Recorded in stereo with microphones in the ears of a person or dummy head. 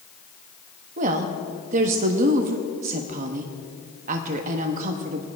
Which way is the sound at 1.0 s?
40° right (ahead or behind).